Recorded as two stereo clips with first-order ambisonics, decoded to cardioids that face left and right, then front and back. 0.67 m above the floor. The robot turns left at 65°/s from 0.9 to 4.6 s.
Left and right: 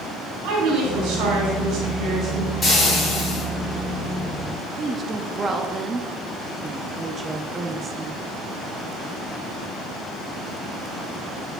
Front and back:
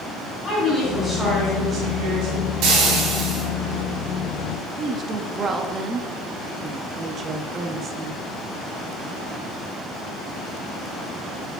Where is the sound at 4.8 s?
140° right, 0.5 m.